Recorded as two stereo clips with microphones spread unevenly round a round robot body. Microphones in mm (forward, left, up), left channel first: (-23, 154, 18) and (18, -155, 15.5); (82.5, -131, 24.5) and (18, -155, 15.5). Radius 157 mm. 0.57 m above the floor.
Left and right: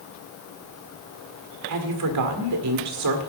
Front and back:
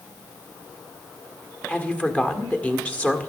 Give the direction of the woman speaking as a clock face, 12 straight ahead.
2 o'clock.